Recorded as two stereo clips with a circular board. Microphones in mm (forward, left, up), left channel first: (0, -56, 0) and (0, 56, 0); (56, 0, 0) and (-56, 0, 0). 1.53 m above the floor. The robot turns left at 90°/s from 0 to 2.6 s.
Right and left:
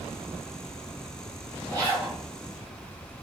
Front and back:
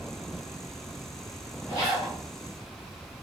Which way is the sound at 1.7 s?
50° left.